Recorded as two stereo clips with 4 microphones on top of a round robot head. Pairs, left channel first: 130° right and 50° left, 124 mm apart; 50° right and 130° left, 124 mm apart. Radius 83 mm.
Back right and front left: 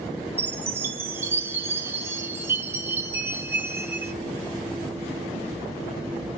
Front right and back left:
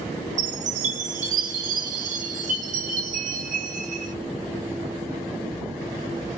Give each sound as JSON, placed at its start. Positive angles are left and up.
{"t": 0.4, "sound": "a chime", "azimuth_deg": 115, "distance_m": 0.5}